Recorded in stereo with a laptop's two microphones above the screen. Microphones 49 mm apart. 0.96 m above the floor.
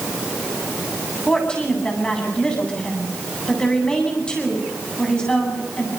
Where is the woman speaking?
15° left (ahead or behind), 8.5 m.